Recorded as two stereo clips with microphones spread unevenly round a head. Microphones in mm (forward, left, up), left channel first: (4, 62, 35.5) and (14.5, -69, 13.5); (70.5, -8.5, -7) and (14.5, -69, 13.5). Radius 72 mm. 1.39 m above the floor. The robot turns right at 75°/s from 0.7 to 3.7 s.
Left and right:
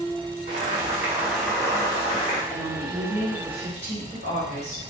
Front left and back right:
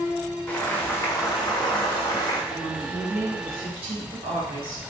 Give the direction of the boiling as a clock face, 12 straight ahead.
1 o'clock.